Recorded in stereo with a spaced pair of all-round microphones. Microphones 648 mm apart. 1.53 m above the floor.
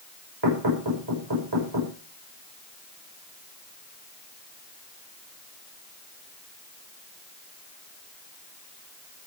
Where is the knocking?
40° right (ahead or behind), 6 m.